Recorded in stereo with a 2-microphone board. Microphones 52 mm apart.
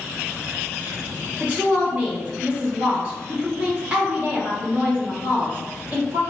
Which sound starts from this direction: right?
A woman speaking, at 1.4 s.